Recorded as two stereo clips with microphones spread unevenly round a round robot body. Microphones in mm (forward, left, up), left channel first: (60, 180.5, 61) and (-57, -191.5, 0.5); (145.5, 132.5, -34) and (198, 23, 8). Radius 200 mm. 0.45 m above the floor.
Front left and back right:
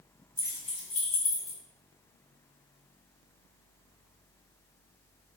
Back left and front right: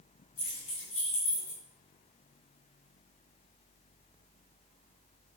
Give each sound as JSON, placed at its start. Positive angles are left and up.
{"t": 0.4, "sound": "keys jangling", "azimuth_deg": 160, "distance_m": 1.9}